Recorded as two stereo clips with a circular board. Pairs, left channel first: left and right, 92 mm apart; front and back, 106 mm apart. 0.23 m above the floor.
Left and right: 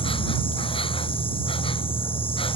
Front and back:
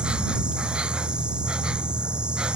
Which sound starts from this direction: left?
An insect, at 0.0 s.